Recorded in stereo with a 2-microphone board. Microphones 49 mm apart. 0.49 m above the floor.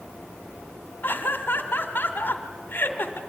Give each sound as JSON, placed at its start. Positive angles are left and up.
{"t": 1.0, "sound": "laughter", "side_deg": 50, "distance_m": 1.5}